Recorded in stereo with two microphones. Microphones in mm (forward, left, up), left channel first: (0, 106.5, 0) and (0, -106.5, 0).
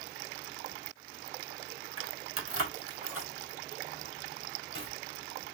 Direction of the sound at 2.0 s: 85° right.